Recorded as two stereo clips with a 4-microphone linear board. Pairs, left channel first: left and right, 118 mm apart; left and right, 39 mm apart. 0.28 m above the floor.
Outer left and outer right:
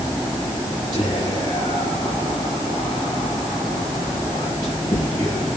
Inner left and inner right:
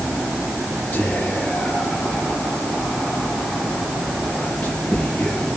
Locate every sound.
0.9 s whispering: 35° left (ahead or behind), 4.5 m